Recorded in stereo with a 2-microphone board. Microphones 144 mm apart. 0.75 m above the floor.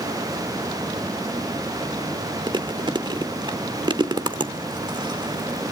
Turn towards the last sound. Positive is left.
turn(degrees=-30)  # may be behind; listen again after turning